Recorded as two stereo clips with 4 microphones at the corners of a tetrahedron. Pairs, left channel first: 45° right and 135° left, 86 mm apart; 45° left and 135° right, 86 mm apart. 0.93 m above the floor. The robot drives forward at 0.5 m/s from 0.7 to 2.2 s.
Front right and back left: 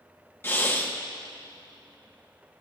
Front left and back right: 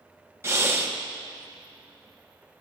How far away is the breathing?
About 1.1 m.